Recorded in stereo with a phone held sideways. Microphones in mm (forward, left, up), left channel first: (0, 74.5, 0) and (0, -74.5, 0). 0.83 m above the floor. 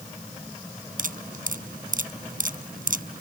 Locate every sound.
1.0 s dripping: 70° right (ahead or behind)